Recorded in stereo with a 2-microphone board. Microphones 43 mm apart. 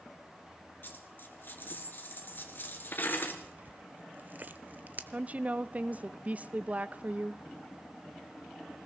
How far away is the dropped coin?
About 1.9 m.